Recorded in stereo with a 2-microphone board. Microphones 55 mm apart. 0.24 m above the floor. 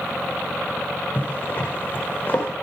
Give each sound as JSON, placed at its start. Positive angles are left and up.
{"t": 1.1, "sound": "a zipper", "side_deg": 35, "distance_m": 6.0}